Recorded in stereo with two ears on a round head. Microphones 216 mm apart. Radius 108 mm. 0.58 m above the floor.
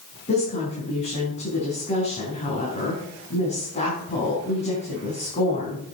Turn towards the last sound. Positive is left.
turn(degrees=30)  # may be behind; listen again after turning